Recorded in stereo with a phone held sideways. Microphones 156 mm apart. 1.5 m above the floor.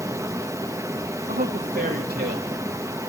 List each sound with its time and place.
0.0 s running water: 20° right (ahead or behind), 0.9 m
1.3 s a man speaking: 80° right, 2.5 m